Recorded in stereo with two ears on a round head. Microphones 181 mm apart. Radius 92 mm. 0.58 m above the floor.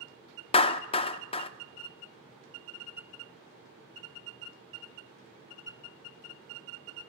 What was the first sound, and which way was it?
A clap, 25° left (ahead or behind).